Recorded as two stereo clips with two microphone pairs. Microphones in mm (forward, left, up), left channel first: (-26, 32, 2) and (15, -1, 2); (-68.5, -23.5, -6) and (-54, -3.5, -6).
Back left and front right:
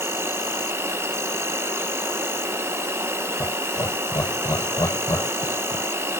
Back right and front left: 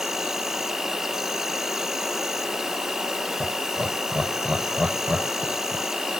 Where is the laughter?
125° left.